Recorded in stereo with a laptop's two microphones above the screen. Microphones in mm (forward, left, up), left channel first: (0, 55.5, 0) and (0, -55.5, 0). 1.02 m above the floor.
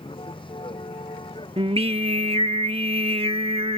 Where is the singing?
55° right (ahead or behind).